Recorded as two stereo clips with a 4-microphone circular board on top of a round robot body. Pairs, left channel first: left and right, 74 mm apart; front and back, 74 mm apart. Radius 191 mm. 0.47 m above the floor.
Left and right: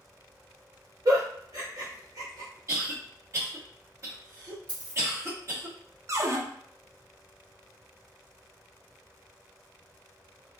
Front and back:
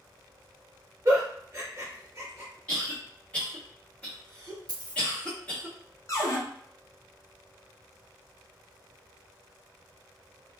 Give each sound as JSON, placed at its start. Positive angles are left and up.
{"t": 1.1, "sound": "a giggle", "azimuth_deg": -125, "distance_m": 1.1}
{"t": 2.7, "sound": "a cough", "azimuth_deg": -70, "distance_m": 1.8}
{"t": 4.7, "sound": "a dropped coin", "azimuth_deg": -160, "distance_m": 0.6}
{"t": 6.1, "sound": "a cupboard door", "azimuth_deg": -40, "distance_m": 0.8}